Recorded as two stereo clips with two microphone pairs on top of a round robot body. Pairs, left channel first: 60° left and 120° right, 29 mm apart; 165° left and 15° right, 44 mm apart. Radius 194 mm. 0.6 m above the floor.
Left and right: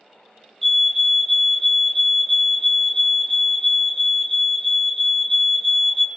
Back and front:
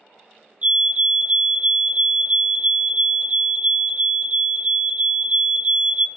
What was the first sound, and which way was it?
A fire alarm, 10° right.